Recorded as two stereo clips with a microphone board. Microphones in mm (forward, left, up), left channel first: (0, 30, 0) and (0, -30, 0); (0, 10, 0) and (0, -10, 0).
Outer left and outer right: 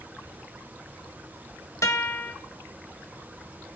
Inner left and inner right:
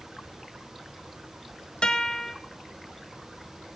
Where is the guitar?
60° left (ahead or behind), 1.2 m.